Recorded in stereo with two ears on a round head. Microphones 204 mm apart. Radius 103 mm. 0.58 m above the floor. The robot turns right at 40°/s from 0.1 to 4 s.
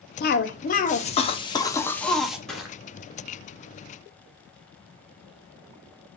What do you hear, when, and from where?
0.2 s a cough: 100° left, 0.8 m; by 2.4 s 175° right, 0.8 m
2.5 s crushing: 5° left (ahead or behind), 1.1 m; by 2.8 s 5° right (ahead or behind), 1.1 m